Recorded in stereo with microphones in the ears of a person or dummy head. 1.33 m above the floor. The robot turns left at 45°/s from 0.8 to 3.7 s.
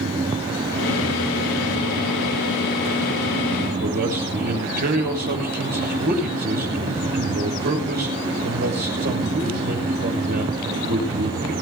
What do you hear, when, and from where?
3.8 s a man speaking: 50° right (ahead or behind), 6.5 m